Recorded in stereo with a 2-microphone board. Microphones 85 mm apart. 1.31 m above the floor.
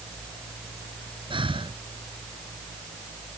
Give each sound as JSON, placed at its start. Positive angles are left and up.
{"t": 1.3, "sound": "breathing", "side_deg": -90}